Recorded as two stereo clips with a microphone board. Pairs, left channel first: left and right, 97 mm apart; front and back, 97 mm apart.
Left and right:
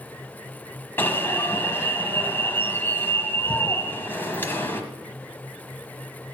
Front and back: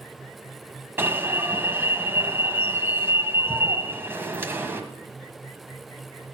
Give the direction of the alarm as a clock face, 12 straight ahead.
7 o'clock.